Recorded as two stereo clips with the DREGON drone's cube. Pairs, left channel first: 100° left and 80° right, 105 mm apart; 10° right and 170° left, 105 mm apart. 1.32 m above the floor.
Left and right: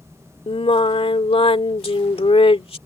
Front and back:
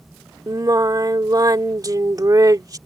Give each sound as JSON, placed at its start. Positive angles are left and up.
{"t": 0.5, "sound": "singing", "azimuth_deg": 115}